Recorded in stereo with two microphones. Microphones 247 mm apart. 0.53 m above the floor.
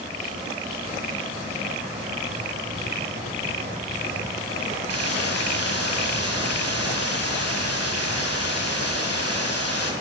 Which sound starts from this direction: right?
A hiss, at 4.9 s.